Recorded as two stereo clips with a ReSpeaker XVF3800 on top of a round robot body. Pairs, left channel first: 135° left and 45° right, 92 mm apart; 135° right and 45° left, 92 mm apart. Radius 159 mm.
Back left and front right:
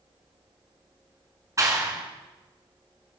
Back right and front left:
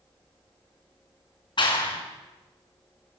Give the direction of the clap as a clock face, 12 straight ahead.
3 o'clock.